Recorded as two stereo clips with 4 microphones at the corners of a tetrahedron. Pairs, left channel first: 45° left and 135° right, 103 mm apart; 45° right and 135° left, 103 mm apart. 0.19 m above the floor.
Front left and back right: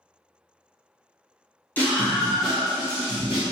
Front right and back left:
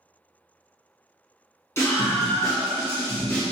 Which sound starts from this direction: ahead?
A scream, at 1.8 s.